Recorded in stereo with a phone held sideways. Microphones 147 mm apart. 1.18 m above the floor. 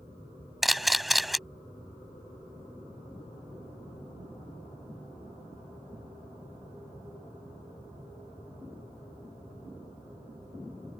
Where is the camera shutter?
Centre (ahead or behind).